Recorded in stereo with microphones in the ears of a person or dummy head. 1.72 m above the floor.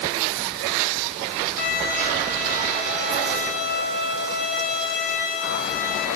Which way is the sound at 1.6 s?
65° left (ahead or behind).